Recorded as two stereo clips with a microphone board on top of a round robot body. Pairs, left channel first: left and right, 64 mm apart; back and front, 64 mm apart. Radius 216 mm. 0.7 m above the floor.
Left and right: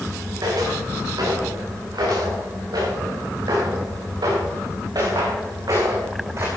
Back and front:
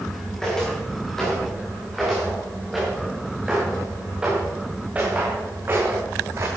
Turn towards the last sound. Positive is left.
turn(degrees=-40)